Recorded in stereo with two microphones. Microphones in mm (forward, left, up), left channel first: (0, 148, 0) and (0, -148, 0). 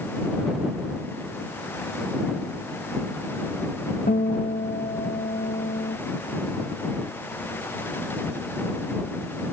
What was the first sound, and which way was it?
A guitar, 30° left (ahead or behind).